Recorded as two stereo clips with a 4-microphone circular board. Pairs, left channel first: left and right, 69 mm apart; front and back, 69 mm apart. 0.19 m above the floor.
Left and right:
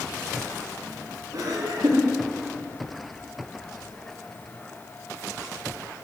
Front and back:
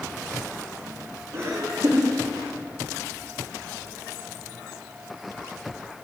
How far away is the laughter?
About 7 m.